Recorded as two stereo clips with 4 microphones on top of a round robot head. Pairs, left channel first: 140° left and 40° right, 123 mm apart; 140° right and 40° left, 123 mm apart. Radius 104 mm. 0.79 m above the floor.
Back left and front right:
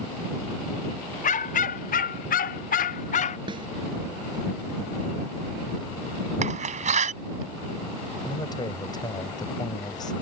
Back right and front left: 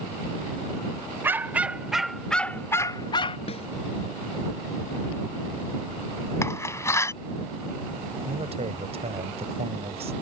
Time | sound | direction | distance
1.2 | a dog barking | 115° left | ?
3.5 | a snare drum | 95° right | ?
6.4 | a door slam | 70° right | ?
8.2 | a man speaking | 80° left | ?